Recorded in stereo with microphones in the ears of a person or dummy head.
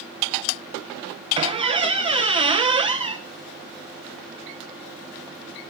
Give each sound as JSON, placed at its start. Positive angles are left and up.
{"t": 1.4, "sound": "a squeak", "side_deg": -25, "distance_m": 0.6}